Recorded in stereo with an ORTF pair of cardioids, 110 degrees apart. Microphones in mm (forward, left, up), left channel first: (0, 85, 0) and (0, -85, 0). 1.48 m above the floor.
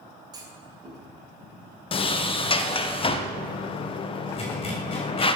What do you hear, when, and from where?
0.3 s a clunk: 25° right, 3 m
1.9 s a sliding door: 30° left, 1.2 m
4.3 s a zipper: 35° left, 5 m